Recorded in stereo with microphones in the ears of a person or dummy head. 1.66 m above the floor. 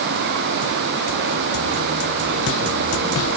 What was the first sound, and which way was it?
Only background noise.